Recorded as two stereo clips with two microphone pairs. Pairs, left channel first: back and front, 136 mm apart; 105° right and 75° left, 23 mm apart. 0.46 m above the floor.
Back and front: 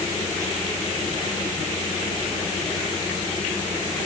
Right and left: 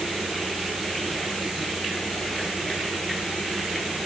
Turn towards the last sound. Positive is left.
No sound to turn to.